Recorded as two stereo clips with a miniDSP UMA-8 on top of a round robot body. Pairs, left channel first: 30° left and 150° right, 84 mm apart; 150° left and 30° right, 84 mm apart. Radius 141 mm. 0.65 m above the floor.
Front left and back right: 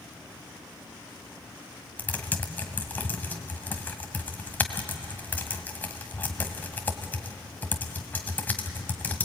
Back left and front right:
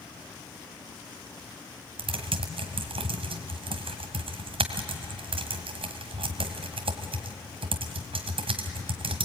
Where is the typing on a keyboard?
40° right, 1.5 m.